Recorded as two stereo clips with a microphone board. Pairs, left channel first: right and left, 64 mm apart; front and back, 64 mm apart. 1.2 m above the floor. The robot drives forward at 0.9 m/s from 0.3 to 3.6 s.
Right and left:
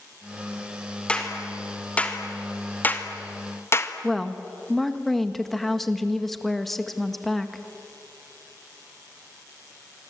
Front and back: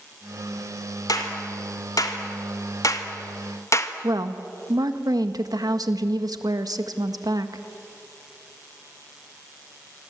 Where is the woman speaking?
175° right, 1.6 m.